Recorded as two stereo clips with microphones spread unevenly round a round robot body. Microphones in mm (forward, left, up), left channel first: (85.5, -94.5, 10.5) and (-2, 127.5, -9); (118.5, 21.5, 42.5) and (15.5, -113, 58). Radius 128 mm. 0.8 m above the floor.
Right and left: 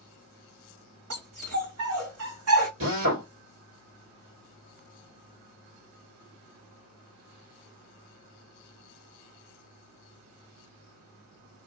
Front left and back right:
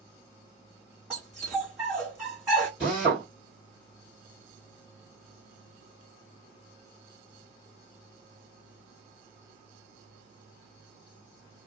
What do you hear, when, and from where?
1.1 s a dog barking: 150° left, 1.5 m
2.8 s a drill: 145° left, 1.4 m